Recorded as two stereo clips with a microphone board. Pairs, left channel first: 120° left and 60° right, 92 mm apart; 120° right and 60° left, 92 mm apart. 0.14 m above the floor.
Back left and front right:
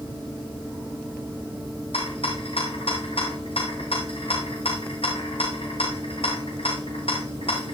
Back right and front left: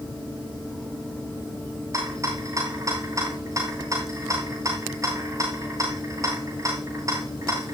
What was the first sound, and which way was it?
A rattle, 115° left.